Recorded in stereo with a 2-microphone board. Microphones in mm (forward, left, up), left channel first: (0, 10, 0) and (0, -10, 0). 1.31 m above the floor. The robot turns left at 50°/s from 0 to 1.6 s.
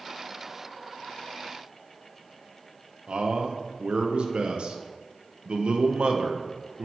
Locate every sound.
3.1 s a man speaking: 60° right (ahead or behind), 0.8 m